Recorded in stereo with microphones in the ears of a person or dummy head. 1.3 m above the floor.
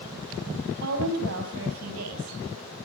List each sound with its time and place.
0.8 s a woman speaking: 75° right (ahead or behind), 7 m